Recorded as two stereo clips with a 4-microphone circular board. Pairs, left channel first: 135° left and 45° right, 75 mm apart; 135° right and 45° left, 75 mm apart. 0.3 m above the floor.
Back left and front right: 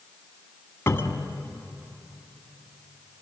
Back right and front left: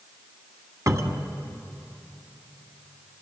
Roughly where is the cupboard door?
Left.